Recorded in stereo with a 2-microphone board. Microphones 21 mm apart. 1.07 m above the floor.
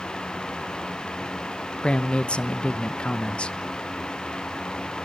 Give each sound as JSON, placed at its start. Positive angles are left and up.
{"t": 1.8, "sound": "a man speaking", "side_deg": 60, "distance_m": 0.8}